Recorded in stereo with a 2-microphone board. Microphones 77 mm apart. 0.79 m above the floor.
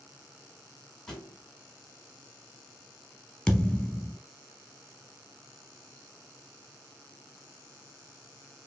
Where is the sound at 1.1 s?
5° left (ahead or behind), 2 m.